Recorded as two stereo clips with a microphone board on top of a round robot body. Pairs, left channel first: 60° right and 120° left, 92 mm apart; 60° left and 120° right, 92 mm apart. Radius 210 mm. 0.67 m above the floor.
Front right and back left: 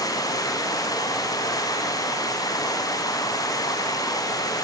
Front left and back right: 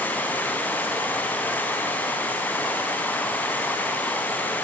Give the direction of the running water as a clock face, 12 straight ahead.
12 o'clock.